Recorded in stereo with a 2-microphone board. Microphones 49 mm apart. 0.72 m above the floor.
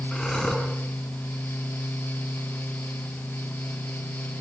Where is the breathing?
10° left (ahead or behind), 4 m.